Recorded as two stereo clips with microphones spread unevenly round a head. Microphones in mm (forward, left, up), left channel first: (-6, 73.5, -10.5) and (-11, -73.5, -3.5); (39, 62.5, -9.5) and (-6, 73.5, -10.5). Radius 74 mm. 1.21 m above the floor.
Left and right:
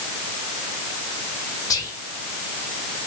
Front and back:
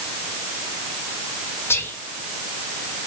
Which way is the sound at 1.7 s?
20° left.